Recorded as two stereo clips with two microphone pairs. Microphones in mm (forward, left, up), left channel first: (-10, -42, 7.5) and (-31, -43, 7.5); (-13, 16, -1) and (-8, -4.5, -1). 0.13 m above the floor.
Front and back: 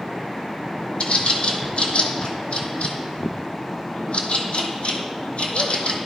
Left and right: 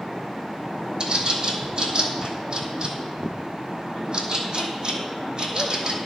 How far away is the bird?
About 0.9 m.